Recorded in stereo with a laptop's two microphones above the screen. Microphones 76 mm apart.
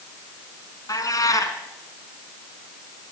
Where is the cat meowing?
50° left (ahead or behind), 2.5 m.